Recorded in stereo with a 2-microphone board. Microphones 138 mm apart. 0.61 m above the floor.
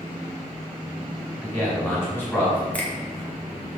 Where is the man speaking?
15° left (ahead or behind), 1.6 m.